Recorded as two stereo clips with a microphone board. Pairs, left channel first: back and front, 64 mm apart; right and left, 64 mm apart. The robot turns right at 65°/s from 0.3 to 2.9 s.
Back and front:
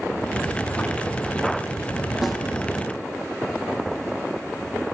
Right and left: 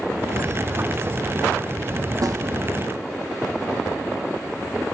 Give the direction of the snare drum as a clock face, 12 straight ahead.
9 o'clock.